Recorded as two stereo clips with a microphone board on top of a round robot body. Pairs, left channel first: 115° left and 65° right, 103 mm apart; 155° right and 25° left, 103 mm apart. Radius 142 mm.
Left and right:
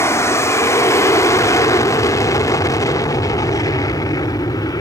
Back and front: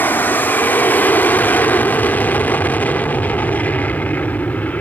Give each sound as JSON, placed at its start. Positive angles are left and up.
{"t": 0.0, "sound": "an aircraft", "azimuth_deg": 150}